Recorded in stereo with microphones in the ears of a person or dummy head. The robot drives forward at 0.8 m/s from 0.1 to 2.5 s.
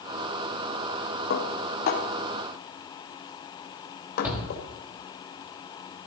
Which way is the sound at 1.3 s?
70° left (ahead or behind).